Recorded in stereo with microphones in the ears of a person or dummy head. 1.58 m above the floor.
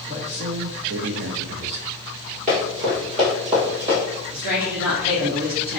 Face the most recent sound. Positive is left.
turn(degrees=-85)